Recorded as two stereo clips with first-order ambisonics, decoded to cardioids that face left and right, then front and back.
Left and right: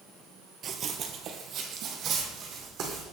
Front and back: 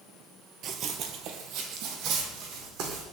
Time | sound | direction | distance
0.6 | running footsteps | 140° right | 0.8 m